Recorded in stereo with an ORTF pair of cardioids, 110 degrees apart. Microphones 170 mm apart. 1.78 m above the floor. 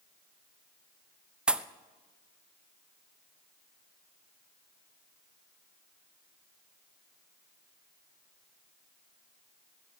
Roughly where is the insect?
I don't hear an insect.